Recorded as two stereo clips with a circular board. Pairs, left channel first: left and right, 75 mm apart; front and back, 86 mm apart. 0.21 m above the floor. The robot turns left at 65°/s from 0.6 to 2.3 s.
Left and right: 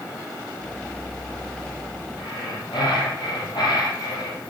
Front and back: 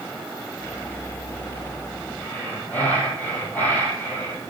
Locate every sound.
2.2 s breathing: 80° left, 3.5 m; by 4.5 s 70° left, 3.5 m